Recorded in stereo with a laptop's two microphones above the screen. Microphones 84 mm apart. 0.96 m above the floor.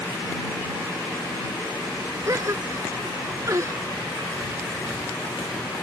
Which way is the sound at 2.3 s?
40° right (ahead or behind).